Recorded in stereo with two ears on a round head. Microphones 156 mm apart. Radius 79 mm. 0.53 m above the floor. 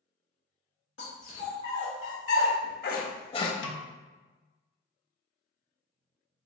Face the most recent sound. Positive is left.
turn(degrees=80)